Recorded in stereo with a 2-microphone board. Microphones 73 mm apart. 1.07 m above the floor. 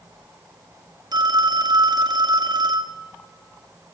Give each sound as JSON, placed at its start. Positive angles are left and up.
{"t": 1.1, "sound": "a phone ringing", "side_deg": -70, "distance_m": 1.2}